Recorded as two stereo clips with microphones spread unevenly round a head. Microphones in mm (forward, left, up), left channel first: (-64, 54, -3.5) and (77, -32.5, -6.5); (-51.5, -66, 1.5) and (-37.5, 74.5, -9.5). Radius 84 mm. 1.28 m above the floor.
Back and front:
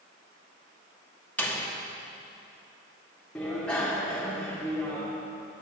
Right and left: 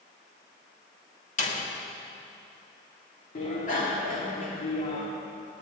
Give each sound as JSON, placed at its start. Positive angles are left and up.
{"t": 1.4, "sound": "a door slam", "azimuth_deg": -130, "distance_m": 2.0}
{"t": 3.4, "sound": "a bicycle bell", "azimuth_deg": -130, "distance_m": 2.5}